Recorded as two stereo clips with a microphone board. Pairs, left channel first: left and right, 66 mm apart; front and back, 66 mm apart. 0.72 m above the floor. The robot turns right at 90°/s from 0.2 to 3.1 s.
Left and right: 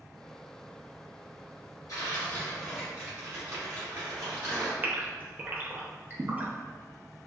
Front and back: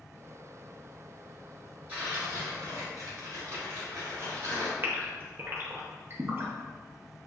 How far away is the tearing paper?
About 1.7 m.